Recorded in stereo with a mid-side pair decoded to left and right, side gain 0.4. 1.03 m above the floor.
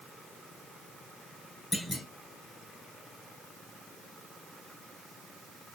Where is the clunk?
30° left, 2.5 m.